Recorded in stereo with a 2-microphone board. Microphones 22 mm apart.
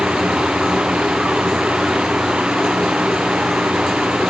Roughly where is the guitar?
I don't hear a guitar.